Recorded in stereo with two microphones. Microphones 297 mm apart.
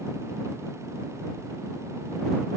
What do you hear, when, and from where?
Only background noise.